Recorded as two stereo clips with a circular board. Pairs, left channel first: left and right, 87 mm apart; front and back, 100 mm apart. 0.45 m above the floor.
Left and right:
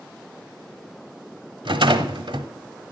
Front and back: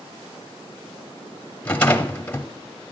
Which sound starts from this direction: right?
A rattle, at 1.6 s.